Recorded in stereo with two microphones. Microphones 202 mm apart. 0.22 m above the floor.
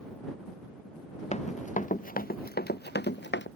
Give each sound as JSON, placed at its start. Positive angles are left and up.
{"t": 1.3, "sound": "running footsteps", "side_deg": 35}